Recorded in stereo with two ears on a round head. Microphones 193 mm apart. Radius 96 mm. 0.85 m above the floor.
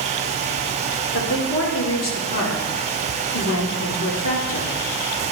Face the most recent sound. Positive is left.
turn(degrees=65)  # may be behind; listen again after turning